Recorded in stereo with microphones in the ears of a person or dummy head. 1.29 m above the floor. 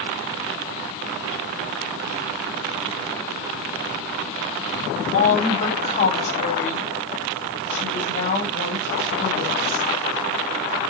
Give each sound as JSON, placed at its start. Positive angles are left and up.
{"t": 5.1, "sound": "a woman speaking", "side_deg": 55, "distance_m": 3.0}